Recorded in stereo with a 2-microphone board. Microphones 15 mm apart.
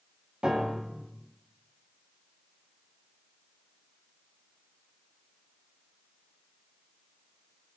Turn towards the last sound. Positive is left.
turn(degrees=-75)  # may be behind; listen again after turning